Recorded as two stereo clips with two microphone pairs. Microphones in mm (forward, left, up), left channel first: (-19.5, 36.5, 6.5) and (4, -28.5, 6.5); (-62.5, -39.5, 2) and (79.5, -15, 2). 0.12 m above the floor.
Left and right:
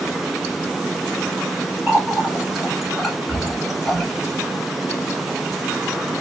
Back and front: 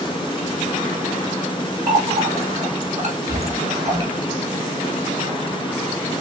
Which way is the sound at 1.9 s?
20° left.